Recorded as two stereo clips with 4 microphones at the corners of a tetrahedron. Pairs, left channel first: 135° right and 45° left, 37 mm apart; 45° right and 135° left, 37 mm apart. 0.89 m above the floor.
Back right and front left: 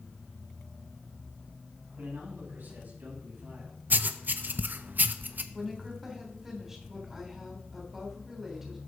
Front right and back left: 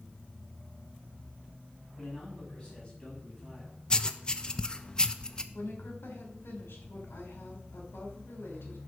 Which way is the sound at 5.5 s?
35° right.